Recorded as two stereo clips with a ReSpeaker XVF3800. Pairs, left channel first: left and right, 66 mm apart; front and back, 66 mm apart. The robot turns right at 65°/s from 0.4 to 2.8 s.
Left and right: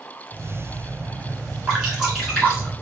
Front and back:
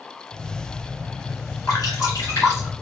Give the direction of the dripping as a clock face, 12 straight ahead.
1 o'clock.